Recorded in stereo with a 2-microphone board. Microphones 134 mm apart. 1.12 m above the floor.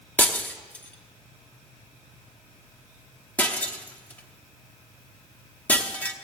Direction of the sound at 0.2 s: 10° left (ahead or behind).